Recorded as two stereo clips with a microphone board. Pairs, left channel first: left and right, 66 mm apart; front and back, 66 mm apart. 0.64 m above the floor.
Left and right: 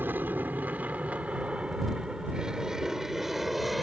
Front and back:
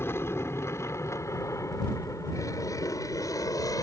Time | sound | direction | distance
0.0 | an aircraft | 40° right | ?